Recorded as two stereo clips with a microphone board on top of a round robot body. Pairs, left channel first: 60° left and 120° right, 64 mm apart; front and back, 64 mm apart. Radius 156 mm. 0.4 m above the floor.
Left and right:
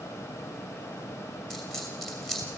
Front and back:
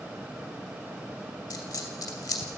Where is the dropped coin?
25° right, 2.5 m.